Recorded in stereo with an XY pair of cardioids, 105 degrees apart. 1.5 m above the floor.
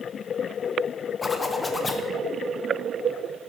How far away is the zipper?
About 1.2 m.